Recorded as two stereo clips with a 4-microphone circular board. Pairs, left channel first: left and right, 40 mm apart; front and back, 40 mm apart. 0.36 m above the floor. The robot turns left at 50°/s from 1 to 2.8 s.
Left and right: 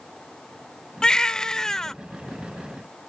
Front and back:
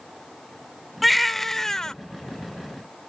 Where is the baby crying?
90° left; by 1.9 s 45° left.